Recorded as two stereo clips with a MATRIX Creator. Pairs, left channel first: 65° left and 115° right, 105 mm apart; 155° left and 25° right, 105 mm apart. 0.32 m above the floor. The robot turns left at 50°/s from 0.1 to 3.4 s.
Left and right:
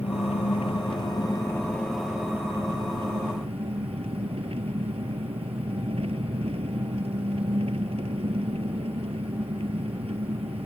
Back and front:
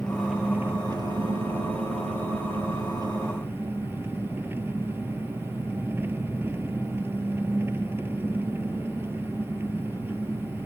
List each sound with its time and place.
0.0 s an engine running: 75° left; by 10.7 s 90° right